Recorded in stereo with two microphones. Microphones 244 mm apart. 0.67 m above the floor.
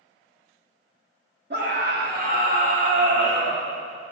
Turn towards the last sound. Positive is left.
turn(degrees=-25)  # may be behind; listen again after turning